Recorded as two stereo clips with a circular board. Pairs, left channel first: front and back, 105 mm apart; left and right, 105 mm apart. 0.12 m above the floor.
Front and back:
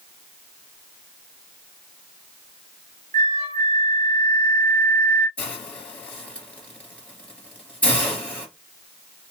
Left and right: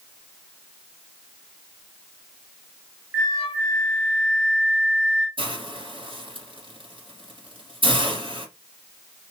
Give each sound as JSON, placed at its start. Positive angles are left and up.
{"t": 3.1, "sound": "a flute", "azimuth_deg": -35, "distance_m": 2.5}
{"t": 5.4, "sound": "a hiss", "azimuth_deg": -80, "distance_m": 2.0}